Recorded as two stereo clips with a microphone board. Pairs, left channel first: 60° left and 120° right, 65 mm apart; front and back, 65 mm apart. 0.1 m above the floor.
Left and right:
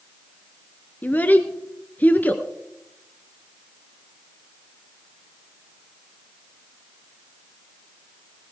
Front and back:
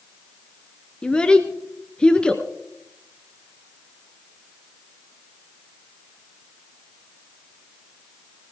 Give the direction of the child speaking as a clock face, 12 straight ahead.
10 o'clock.